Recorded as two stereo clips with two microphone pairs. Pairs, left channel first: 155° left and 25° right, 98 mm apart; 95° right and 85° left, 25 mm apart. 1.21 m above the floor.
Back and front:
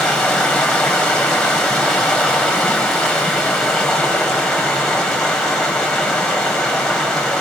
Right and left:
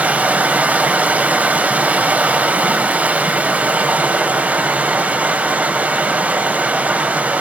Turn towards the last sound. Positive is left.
turn(degrees=75)